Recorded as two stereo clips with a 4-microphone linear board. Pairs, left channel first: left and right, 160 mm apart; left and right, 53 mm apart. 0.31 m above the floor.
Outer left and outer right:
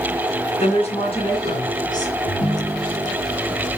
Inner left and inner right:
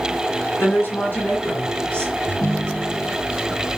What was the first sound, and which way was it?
A woman speaking, 40° left (ahead or behind).